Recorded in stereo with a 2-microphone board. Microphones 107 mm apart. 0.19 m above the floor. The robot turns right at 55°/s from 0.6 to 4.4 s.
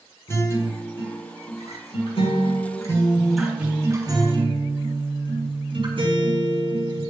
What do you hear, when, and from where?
0.3 s a guitar: 30° left, 6 m; by 7.1 s 125° right, 6 m